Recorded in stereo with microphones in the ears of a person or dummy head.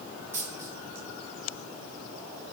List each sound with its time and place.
0.3 s a dropped coin: 20° right (ahead or behind), 1.8 m